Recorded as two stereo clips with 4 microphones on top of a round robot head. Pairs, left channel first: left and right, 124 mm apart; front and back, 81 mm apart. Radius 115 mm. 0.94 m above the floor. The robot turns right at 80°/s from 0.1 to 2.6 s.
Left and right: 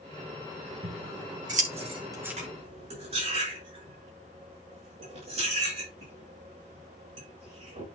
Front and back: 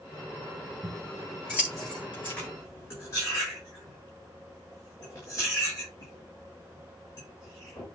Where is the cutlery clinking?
75° right, 7.5 m; by 7.9 s 55° right, 7.5 m.